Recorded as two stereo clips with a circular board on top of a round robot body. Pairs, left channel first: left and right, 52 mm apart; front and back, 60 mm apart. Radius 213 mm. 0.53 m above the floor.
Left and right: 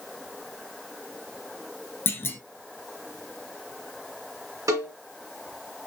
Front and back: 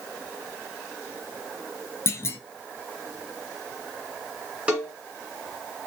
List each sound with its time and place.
2.1 s a clunk: 45° left, 0.8 m
4.7 s a cowbell: 110° right, 0.6 m